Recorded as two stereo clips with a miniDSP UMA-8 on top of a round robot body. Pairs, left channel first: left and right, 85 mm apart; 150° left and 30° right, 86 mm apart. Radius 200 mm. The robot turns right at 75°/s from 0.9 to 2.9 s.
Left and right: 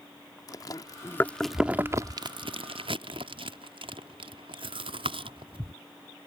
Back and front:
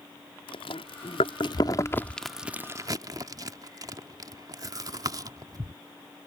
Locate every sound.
0.5 s chewing: 135° left; by 5.7 s 75° right